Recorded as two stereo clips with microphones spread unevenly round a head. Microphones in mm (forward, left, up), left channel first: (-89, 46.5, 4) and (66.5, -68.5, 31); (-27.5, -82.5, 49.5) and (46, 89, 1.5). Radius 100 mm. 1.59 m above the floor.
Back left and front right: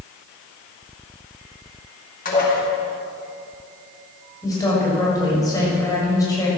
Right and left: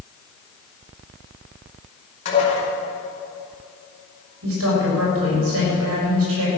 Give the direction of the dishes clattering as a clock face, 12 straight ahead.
6 o'clock.